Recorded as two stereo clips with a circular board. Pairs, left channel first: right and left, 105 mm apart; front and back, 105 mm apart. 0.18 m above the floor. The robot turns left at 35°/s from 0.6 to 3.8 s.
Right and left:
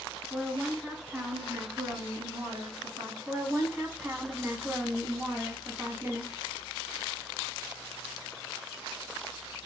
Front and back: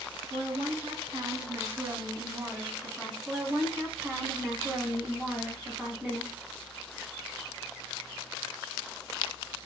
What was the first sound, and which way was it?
A woman speaking, 175° right.